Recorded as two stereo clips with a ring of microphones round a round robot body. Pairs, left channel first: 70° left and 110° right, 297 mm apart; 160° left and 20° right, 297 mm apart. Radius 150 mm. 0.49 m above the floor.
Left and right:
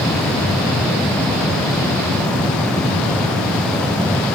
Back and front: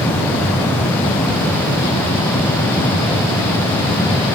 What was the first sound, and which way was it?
Only background noise.